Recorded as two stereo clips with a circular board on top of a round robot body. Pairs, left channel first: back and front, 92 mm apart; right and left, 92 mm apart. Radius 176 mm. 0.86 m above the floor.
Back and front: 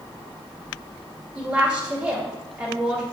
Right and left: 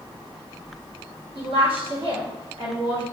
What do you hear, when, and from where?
1.4 s a woman speaking: 75° left, 2 m